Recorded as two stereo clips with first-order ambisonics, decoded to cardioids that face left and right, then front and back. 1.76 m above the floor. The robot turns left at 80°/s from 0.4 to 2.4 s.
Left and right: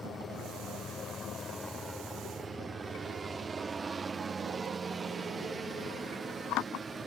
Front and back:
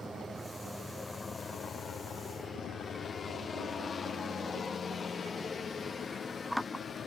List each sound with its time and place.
0.0 s a helicopter: 120° left; by 7.1 s 40° right